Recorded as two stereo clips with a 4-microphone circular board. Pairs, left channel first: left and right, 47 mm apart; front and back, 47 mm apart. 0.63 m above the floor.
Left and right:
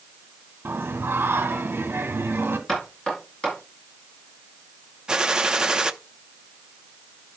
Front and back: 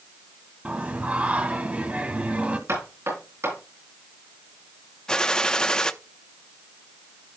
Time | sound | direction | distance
0.7 | singing | 120° right | 1.6 m
2.7 | knocking | 165° left | 8.5 m
5.1 | a gunshot | 40° right | 0.7 m